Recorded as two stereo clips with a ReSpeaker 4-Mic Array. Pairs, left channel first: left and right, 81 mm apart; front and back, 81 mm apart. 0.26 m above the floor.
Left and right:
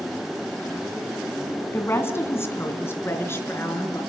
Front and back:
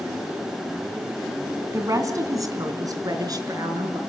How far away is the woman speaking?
About 2.5 m.